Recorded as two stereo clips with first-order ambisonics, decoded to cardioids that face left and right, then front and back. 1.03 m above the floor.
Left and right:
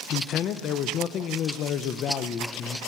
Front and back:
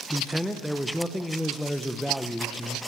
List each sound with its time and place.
0.1 s a man speaking: 90° left, 0.6 m